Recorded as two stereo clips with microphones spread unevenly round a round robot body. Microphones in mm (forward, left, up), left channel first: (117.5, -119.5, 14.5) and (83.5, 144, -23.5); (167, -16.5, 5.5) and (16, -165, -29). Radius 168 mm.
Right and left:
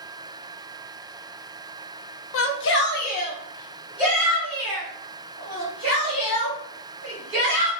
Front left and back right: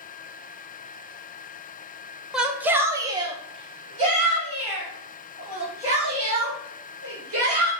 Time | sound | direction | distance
2.3 | a shout | 60° right | 0.7 m